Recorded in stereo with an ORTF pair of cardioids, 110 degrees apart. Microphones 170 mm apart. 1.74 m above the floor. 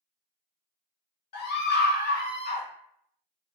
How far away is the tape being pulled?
I don't hear tape being pulled.